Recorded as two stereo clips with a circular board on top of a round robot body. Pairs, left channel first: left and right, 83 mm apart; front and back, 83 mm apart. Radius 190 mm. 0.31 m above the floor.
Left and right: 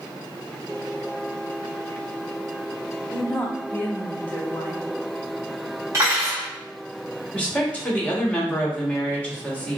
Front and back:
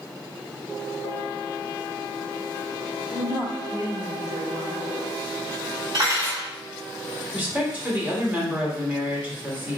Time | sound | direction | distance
3.1 | a woman speaking | 155° left | 1.3 m
5.9 | cutlery clinking | 140° right | 1.9 m
7.3 | a woman speaking | 140° left | 1.3 m